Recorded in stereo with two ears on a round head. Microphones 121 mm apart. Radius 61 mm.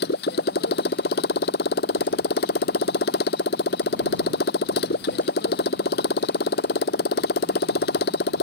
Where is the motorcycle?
85° left.